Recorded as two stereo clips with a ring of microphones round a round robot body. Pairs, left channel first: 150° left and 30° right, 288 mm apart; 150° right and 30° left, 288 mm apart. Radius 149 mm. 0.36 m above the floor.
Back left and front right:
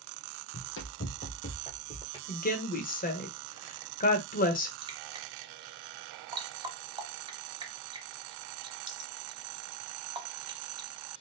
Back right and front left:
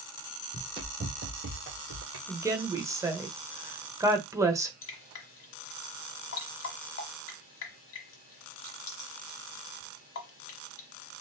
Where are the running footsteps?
105° left, 1.0 m; by 2.2 s 70° left, 1.6 m.